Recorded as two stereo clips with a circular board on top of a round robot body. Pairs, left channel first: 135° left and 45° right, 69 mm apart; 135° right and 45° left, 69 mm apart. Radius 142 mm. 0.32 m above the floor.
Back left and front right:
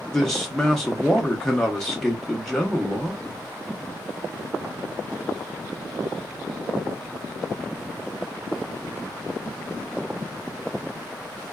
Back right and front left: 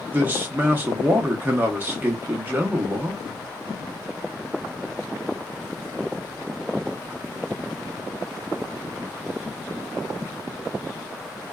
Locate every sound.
0.1 s a man speaking: 60° left, 0.9 m